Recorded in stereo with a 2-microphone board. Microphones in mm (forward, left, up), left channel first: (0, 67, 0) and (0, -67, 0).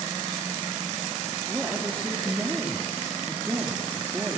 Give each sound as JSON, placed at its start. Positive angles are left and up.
{"t": 1.5, "sound": "a woman speaking", "side_deg": -10, "distance_m": 3.0}